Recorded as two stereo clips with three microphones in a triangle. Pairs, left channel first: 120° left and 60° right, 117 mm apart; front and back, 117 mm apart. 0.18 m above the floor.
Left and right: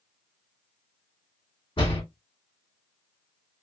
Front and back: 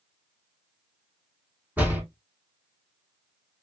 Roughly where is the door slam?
Left.